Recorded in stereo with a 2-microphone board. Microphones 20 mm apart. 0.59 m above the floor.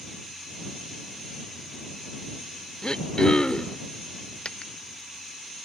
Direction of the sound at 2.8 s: 40° left (ahead or behind).